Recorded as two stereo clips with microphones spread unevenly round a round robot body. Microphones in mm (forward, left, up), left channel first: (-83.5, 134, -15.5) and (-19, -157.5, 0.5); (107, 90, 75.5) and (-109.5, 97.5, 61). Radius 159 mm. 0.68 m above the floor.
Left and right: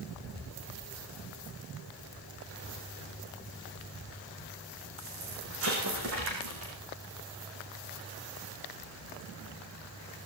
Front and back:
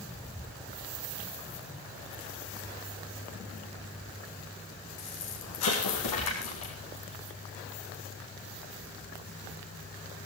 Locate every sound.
5.0 s an explosion: 25° right, 5.5 m